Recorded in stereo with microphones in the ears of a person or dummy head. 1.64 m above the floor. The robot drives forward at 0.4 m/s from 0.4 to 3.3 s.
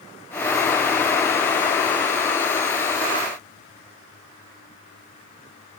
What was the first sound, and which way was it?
Only background noise.